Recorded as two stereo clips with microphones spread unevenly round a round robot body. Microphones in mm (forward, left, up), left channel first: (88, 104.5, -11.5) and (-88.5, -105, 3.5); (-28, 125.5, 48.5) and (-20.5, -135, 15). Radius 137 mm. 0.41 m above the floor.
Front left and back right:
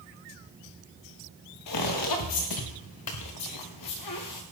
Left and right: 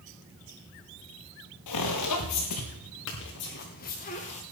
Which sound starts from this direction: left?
Footsteps, at 1.7 s.